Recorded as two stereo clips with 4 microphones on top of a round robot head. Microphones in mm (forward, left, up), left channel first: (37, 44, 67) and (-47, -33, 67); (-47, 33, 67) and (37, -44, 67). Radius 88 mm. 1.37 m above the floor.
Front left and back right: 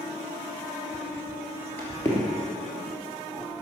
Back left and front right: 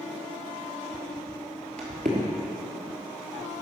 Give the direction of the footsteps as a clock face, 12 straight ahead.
3 o'clock.